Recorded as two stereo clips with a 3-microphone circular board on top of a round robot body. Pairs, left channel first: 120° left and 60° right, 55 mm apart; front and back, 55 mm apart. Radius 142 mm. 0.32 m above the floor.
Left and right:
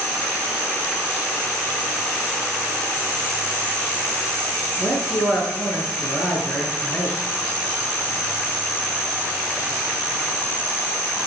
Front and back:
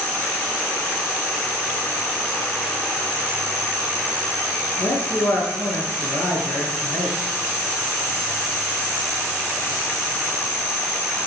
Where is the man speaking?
40° left, 5.5 m.